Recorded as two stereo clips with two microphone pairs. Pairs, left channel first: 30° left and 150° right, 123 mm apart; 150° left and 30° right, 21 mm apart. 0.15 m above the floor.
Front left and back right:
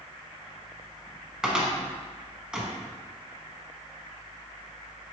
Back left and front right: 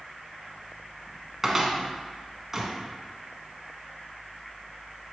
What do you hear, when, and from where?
1.4 s a cupboard door: 80° right, 0.8 m